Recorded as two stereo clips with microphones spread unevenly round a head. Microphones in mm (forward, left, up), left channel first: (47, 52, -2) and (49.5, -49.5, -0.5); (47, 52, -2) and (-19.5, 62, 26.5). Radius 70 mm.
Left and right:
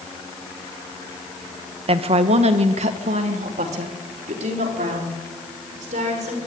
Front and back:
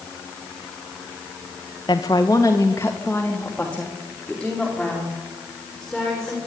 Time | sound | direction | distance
1.9 | a woman speaking | 60° right | 1.6 m